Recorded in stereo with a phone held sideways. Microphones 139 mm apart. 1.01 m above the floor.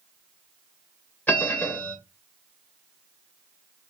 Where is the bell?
15° left (ahead or behind), 2.5 m.